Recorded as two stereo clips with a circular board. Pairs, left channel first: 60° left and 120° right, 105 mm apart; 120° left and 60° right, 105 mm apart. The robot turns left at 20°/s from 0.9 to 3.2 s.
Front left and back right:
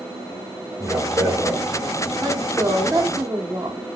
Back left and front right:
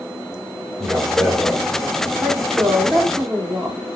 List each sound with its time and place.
0.8 s a man speaking: 120° right, 1.5 m; by 1.6 s 135° right, 1.5 m
2.2 s a woman speaking: 130° right, 0.9 m; by 3.8 s 150° right, 0.9 m